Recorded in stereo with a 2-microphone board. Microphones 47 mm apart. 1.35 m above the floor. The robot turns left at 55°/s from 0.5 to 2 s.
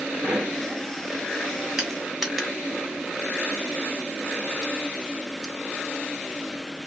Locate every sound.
0.2 s a pop: 55° right (ahead or behind), 3 m; by 0.6 s 50° right (ahead or behind), 3 m
1.8 s crushing: 5° right (ahead or behind), 2 m; by 5.5 s 5° left (ahead or behind), 2 m